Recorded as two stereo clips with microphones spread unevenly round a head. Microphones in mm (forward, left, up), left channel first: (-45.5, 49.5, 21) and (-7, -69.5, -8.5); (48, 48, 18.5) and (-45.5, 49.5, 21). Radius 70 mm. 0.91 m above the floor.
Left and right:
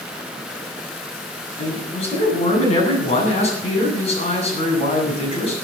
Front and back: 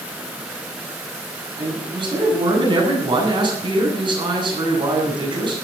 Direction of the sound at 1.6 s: 145° left.